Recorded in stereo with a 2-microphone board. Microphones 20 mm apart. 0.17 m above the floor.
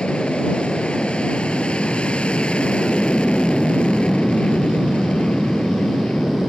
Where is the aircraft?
65° left (ahead or behind).